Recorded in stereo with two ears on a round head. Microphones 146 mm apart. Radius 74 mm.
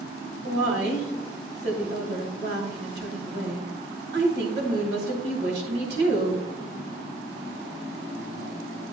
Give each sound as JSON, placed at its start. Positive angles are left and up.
{"t": 0.4, "sound": "a woman speaking", "side_deg": -75, "distance_m": 3.0}